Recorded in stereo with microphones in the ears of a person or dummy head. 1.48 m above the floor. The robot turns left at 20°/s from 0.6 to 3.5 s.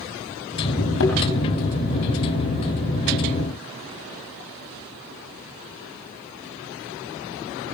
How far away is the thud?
About 3.5 m.